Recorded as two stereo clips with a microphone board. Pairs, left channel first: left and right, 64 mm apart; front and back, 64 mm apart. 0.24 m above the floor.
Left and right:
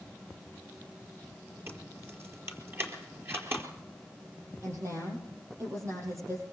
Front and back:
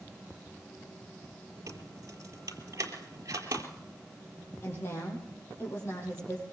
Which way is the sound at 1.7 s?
140° right.